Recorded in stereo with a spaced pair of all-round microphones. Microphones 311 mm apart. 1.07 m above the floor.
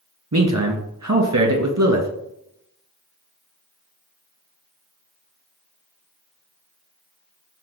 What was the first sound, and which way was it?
A man speaking, 55° right (ahead or behind).